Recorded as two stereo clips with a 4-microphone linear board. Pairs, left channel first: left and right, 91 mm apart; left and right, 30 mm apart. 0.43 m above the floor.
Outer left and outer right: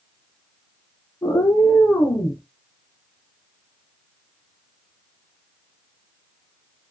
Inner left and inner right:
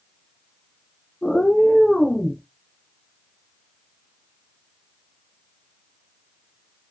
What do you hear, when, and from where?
1.2 s a cat meowing: 40° left (ahead or behind), 0.6 m; by 2.4 s 30° left (ahead or behind), 1.2 m